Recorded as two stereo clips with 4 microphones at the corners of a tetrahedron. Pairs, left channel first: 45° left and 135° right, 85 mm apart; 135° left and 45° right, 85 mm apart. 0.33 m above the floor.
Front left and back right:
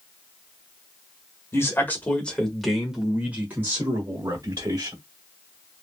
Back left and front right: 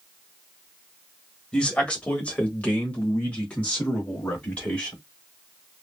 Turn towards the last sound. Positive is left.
turn(degrees=-155)